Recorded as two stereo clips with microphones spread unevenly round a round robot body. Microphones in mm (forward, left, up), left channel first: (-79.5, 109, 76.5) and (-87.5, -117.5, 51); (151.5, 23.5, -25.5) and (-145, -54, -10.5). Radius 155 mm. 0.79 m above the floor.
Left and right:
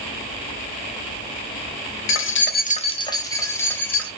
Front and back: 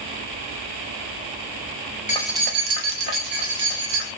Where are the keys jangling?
70° left, 0.5 m; by 4.1 s 175° left, 2 m.